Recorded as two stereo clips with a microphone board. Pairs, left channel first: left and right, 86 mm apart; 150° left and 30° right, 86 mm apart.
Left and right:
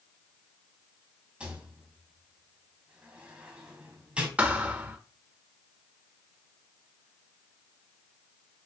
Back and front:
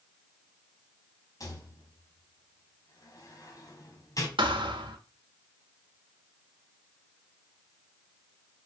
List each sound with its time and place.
1.4 s a rattle: 165° right, 2.0 m
4.4 s a thud: 15° right, 1.2 m